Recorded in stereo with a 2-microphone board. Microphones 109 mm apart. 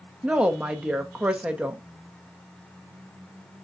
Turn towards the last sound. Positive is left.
turn(degrees=-10)  # may be behind; listen again after turning